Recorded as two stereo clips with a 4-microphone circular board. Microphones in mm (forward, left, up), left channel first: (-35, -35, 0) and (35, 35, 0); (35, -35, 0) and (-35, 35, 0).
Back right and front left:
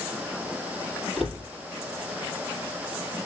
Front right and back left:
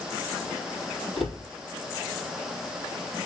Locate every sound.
1.2 s a cupboard door: 45° right, 4 m